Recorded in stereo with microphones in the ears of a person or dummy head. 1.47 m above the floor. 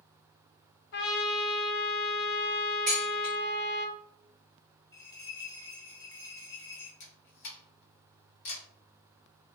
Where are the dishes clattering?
5° left (ahead or behind), 0.7 m.